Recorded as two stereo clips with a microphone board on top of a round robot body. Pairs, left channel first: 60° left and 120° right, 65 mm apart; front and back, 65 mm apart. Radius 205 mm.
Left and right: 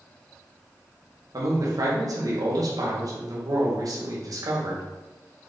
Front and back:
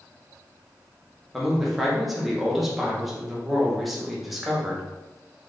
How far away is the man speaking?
About 2 m.